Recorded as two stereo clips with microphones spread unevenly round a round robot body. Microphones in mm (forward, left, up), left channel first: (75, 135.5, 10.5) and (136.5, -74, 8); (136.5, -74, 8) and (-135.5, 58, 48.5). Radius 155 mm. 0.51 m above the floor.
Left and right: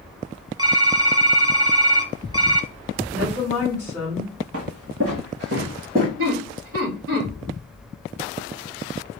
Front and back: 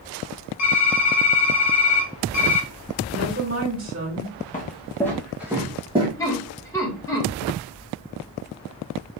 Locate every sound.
0.6 s typing on a keyboard: 5° right, 1.0 m
3.1 s a woman speaking: 155° right, 2.5 m
4.5 s footsteps: 95° right, 1.0 m; by 6.1 s 140° right, 1.5 m
6.2 s laughter: 100° right, 1.8 m